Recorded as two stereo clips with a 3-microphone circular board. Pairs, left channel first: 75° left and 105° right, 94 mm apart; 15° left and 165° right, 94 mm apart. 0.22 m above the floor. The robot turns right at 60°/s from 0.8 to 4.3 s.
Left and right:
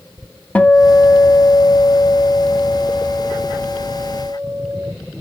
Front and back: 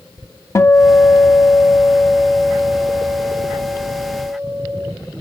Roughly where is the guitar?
Ahead.